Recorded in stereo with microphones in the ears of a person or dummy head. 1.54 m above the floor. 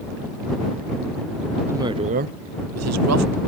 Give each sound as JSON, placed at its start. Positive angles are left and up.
{"t": 1.7, "sound": "a woman speaking", "side_deg": -10}